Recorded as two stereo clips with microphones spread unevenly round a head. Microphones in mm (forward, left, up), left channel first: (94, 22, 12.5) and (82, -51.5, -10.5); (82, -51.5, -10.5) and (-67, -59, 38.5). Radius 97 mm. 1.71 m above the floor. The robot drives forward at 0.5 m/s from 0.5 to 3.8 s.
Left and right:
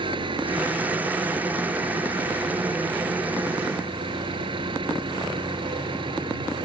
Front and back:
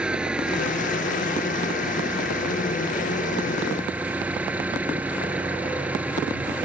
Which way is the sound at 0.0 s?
95° right.